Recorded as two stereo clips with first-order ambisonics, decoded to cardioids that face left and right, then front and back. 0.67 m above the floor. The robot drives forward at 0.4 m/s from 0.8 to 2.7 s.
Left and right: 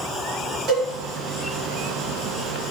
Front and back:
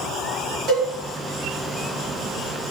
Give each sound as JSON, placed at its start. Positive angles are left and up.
{"t": 0.7, "sound": "a cowbell", "azimuth_deg": -135, "distance_m": 1.8}